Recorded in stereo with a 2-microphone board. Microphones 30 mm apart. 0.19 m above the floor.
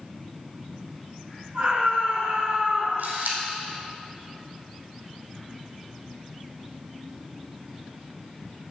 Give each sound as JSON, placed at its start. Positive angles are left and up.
{"t": 1.5, "sound": "a scream", "side_deg": -55, "distance_m": 4.5}
{"t": 3.0, "sound": "a camera shutter", "side_deg": -80, "distance_m": 2.5}